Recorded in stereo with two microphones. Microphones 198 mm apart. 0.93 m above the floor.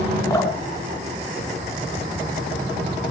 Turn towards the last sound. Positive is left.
turn(degrees=15)  # may be behind; listen again after turning